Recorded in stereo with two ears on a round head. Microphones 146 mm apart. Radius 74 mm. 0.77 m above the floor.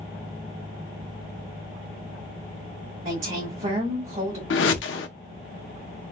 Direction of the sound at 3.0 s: 50° right (ahead or behind).